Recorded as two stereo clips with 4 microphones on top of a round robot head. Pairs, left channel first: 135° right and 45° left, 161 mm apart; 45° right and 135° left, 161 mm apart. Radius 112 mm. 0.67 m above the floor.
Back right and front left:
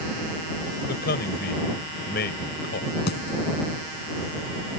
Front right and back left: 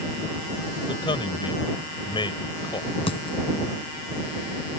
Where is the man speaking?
110° right.